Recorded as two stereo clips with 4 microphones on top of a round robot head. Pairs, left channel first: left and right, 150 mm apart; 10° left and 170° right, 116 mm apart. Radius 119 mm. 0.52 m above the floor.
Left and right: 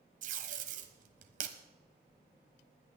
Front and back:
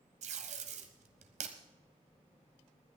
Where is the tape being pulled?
135° right, 1.1 m.